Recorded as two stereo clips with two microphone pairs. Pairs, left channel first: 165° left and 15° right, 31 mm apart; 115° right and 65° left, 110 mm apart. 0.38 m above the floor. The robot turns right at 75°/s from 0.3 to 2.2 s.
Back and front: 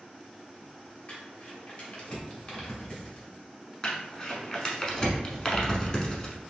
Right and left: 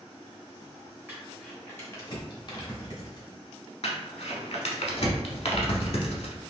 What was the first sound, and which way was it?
Crumpling, 130° left.